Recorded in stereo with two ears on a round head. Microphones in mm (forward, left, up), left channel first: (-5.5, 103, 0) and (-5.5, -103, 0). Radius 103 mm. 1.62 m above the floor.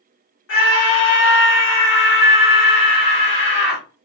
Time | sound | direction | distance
0.5 | a scream | 60° left (ahead or behind) | 1.5 m